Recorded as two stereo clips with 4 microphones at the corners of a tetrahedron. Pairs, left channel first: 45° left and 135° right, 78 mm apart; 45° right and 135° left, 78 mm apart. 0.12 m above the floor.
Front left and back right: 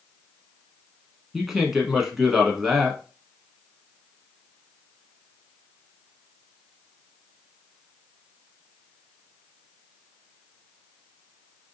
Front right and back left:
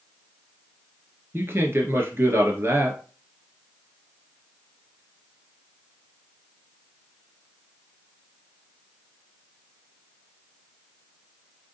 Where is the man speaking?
145° left, 1.2 m.